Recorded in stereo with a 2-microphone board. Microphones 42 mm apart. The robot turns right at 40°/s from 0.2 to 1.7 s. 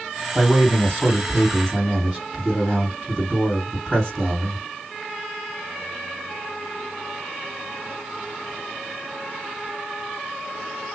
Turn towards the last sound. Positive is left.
turn(degrees=-20)